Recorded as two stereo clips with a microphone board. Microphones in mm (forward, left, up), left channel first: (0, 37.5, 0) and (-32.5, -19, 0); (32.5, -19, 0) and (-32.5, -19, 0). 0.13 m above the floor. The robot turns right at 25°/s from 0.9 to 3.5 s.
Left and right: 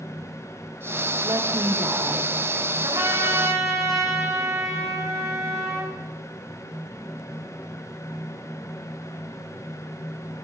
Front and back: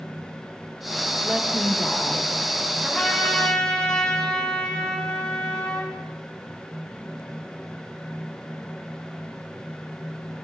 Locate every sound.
1.2 s a woman speaking: 105° right, 4 m; by 2.3 s 75° right, 4 m
2.8 s a trumpet: 95° right, 6 m; by 5.9 s 80° right, 6 m